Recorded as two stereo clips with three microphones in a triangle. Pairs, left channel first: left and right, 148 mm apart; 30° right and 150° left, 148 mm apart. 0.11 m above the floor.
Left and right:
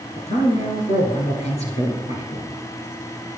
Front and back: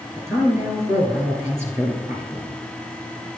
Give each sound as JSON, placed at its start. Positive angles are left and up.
{"t": 0.2, "sound": "a man speaking", "azimuth_deg": 85, "distance_m": 1.9}